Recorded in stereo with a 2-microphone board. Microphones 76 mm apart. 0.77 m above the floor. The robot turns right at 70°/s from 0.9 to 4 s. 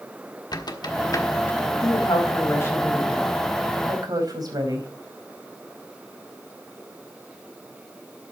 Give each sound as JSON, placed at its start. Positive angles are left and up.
{"t": 0.5, "sound": "a squeak", "side_deg": 65, "distance_m": 1.4}
{"t": 1.8, "sound": "a woman speaking", "azimuth_deg": 85, "distance_m": 4.0}